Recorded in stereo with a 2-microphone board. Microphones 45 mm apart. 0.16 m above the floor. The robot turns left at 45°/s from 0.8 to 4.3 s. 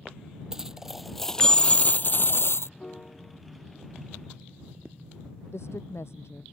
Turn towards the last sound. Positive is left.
turn(degrees=75)  # may be behind; listen again after turning